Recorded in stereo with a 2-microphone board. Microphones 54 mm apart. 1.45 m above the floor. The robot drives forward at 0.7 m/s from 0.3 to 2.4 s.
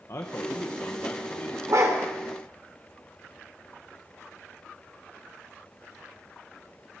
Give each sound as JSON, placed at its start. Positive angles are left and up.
{"t": 0.1, "sound": "a man speaking", "side_deg": 60, "distance_m": 1.0}
{"t": 1.7, "sound": "a dog barking", "side_deg": -65, "distance_m": 2.0}